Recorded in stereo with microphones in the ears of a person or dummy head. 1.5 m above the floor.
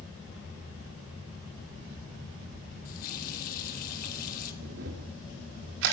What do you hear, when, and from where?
2.9 s a running tap: 45° left (ahead or behind), 1.5 m
4.6 s a camera shutter: 65° right (ahead or behind), 2.0 m